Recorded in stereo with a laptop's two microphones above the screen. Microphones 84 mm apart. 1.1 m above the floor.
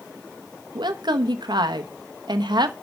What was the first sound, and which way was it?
A woman speaking, 70° right (ahead or behind).